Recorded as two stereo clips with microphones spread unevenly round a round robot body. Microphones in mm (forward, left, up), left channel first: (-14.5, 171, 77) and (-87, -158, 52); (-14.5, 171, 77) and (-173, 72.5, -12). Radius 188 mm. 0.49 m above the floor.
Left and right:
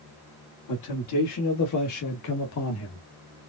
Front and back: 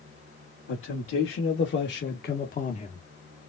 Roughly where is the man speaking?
Ahead left.